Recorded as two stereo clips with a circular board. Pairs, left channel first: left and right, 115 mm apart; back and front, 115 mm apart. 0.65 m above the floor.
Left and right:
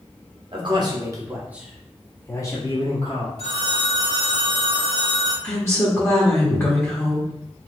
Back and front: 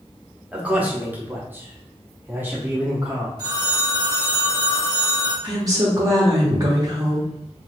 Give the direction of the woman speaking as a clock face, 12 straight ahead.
11 o'clock.